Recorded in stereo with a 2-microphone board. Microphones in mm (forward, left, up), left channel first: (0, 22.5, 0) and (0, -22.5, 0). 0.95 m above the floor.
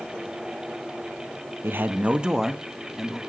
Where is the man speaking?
55° right (ahead or behind), 0.8 m; by 3.2 s 5° left (ahead or behind), 1.8 m.